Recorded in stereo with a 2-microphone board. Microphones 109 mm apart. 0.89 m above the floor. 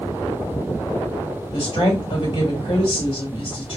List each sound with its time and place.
1.5 s a woman speaking: 65° left (ahead or behind), 3 m